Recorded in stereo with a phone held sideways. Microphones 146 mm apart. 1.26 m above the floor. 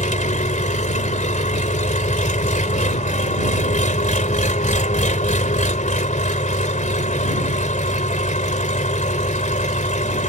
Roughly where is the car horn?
I don't hear a car horn.